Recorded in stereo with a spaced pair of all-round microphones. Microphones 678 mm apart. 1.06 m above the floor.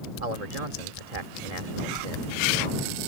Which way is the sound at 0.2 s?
60° right (ahead or behind).